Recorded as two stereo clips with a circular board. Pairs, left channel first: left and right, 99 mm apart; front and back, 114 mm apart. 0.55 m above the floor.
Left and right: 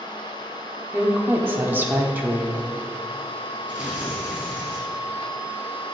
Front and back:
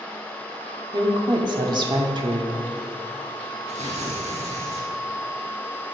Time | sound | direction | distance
0.9 | a woman speaking | 155° right | 1.1 m
3.7 | tearing paper | 170° right | 3 m